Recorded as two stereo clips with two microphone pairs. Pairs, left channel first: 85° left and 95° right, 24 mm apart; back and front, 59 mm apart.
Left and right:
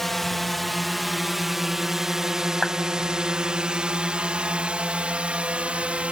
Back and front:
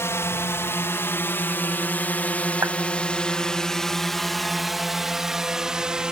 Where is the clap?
20° left.